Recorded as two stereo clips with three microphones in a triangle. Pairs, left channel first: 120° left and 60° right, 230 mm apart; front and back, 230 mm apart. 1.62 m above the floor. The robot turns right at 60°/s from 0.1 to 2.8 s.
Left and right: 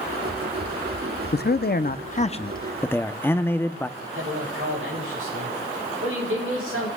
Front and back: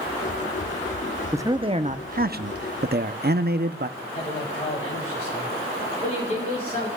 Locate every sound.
1.3 s a man speaking: 105° left, 0.6 m; by 3.9 s 165° right, 0.6 m
4.0 s a man speaking: 50° right, 8.5 m